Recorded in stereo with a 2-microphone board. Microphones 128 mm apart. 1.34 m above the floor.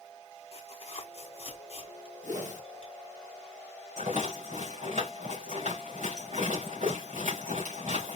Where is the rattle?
80° right, 3 m.